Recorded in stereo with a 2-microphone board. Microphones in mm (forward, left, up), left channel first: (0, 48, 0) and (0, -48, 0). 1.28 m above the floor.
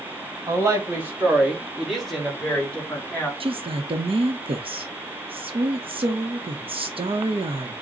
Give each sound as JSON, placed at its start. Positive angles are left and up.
{"t": 0.5, "sound": "a woman speaking", "side_deg": -30, "distance_m": 1.7}
{"t": 3.4, "sound": "a woman speaking", "side_deg": -65, "distance_m": 0.8}